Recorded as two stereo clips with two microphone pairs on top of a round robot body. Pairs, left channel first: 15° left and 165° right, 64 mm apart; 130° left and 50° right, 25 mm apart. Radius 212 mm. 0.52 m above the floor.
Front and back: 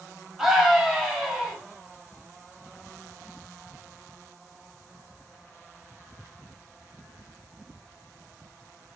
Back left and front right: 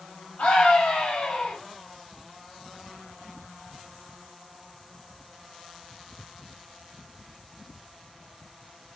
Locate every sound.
0.4 s a scream: 110° left, 5 m